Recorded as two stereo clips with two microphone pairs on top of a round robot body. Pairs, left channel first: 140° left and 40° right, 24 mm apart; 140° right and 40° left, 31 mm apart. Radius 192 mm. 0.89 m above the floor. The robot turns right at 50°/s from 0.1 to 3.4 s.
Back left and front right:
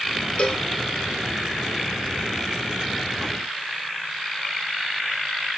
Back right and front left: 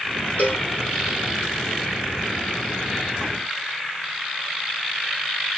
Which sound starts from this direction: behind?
A cowbell, at 0.4 s.